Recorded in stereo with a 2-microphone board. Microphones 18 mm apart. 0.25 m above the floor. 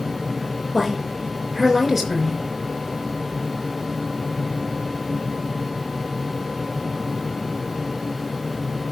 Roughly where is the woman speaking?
Centre.